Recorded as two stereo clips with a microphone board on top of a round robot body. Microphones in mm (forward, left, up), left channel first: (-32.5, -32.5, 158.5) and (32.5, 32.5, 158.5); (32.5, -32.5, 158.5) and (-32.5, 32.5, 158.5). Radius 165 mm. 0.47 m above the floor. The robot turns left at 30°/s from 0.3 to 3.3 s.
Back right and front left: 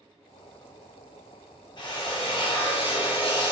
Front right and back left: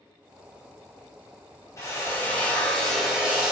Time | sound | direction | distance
1.8 | a drill | 105° right | 3.5 m